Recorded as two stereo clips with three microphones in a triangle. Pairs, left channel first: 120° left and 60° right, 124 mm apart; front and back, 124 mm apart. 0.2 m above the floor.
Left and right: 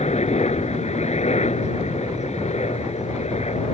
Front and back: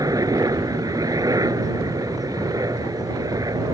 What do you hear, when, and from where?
0.0 s a helicopter: 120° left